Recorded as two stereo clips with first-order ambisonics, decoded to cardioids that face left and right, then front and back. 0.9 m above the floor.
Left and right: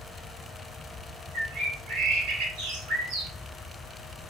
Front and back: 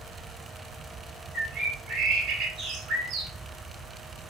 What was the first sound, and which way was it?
A bird, 130° right.